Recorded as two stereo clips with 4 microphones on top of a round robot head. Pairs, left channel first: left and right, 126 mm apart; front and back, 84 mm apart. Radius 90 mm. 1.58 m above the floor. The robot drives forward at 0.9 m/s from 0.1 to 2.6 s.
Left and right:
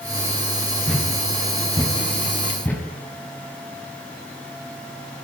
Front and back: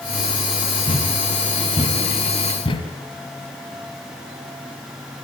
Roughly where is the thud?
Ahead.